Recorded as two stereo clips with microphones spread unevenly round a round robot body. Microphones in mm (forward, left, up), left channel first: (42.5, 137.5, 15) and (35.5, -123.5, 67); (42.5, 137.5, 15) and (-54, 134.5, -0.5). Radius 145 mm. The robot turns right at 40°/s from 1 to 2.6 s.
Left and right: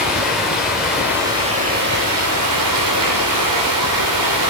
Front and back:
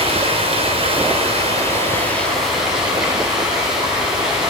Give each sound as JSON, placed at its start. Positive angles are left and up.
{"t": 0.0, "sound": "running water", "azimuth_deg": 180, "distance_m": 3.5}